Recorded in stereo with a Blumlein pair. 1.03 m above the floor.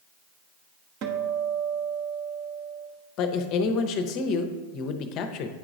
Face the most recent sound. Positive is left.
turn(degrees=35)